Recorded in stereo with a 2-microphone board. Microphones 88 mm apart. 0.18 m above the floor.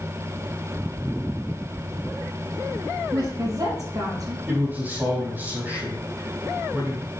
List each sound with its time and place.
3.1 s a woman speaking: 45° right (ahead or behind), 5 m
4.5 s a man speaking: 20° right (ahead or behind), 5 m